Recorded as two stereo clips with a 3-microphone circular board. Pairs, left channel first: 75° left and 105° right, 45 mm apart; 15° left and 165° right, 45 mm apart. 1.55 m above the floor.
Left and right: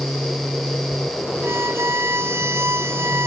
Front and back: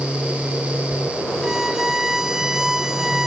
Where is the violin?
85° right.